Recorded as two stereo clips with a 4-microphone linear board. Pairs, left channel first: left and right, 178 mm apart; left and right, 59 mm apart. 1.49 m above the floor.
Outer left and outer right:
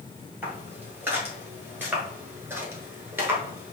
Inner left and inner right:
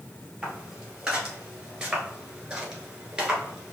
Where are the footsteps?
10° right (ahead or behind), 1.9 m.